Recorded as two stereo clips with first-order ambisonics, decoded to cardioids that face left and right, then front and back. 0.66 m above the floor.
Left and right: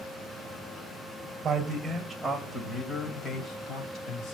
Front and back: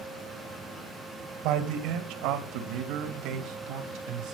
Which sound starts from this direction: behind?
A man speaking, at 1.4 s.